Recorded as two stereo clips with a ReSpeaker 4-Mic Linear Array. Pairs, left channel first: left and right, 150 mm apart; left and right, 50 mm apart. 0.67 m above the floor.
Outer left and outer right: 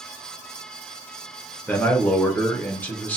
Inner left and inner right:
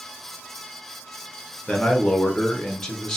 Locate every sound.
1.7 s a man speaking: 10° left (ahead or behind), 0.7 m